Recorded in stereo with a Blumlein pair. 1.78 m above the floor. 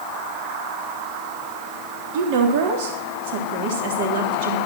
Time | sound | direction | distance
2.1 | a woman speaking | 50° right | 3.5 m